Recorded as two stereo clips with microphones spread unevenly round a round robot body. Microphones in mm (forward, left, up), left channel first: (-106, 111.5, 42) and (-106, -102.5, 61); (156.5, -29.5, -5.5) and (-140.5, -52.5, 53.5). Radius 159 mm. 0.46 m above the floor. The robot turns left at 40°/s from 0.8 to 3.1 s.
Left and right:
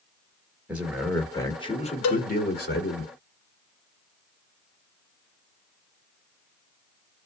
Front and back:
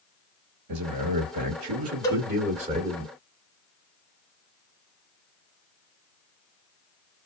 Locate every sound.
0.7 s a man speaking: 175° right, 1.4 m; by 3.0 s 95° left, 1.4 m
2.0 s a cowbell: 85° left, 0.5 m; by 2.3 s 75° left, 0.5 m